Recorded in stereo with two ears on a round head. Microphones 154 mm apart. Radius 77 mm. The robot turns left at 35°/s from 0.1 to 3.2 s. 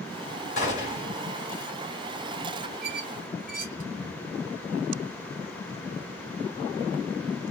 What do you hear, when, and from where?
0.6 s a gunshot: 40° left (ahead or behind), 1.9 m
2.8 s a squeak: 45° right (ahead or behind), 1.5 m; by 3.9 s 50° right (ahead or behind), 1.5 m